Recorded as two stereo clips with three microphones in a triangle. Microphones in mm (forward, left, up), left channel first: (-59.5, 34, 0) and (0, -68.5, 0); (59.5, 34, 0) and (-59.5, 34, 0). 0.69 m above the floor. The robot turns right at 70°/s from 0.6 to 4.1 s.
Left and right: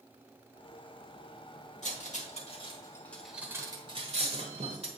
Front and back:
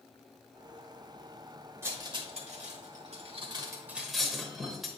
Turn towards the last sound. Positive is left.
turn(degrees=-90)